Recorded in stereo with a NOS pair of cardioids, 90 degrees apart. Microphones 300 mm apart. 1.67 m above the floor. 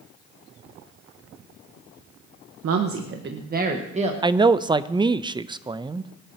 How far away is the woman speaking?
About 1.2 m.